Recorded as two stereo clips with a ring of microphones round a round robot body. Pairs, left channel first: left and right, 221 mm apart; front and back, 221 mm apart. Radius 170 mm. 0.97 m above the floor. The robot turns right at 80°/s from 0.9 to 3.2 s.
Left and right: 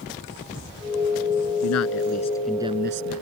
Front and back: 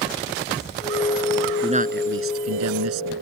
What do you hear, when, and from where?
1.6 s a man speaking: 110° left; by 3.2 s 125° right